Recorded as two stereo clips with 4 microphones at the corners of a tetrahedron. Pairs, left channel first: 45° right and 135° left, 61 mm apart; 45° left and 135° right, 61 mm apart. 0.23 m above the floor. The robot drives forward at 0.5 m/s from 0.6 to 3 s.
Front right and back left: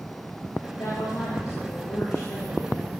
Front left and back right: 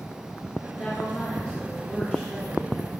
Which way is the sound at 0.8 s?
20° right.